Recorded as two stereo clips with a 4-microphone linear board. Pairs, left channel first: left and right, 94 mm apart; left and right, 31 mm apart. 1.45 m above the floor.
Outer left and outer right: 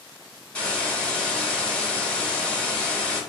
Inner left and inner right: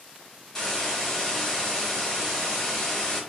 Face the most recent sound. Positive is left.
turn(degrees=10)  # may be behind; listen again after turning